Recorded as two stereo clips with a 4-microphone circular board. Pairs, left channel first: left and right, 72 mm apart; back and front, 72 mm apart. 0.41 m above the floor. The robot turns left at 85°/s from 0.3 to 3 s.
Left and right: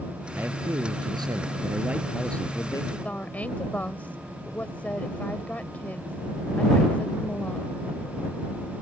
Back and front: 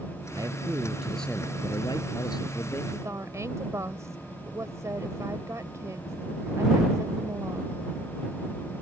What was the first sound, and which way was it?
A man speaking, 25° right.